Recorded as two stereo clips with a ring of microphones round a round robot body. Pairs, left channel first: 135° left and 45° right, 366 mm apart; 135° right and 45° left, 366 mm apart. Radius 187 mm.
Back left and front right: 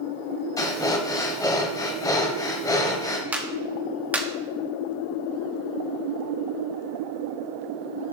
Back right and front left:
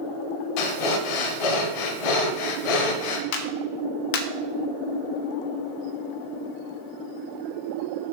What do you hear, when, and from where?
0.6 s breathing: 145° right, 1.0 m
3.3 s a clap: 130° right, 1.2 m